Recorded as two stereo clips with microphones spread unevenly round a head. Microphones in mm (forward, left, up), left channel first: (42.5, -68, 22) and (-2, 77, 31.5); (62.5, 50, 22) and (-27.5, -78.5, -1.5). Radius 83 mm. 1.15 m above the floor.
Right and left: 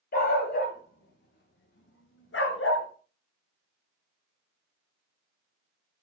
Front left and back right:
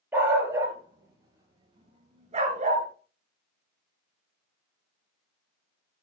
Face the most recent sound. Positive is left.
turn(degrees=-85)